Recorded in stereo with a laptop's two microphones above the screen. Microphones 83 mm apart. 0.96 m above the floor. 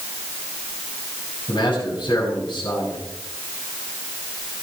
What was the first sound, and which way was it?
A man speaking, 60° left (ahead or behind).